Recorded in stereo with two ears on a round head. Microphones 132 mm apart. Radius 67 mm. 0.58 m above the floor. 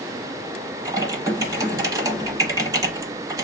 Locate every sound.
0.8 s typing on a keyboard: 25° right (ahead or behind), 0.9 m